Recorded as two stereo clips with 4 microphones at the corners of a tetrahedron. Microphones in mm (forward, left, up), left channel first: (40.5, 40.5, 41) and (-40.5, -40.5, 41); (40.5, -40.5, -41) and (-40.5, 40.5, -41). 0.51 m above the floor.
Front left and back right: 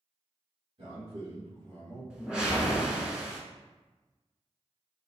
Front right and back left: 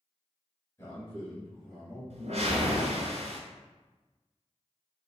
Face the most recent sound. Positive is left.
turn(degrees=145)